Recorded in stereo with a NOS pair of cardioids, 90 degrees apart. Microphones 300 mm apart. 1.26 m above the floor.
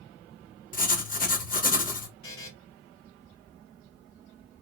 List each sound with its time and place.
0.7 s writing: 30° left, 1.0 m
2.2 s a buzzer: 50° left, 2.5 m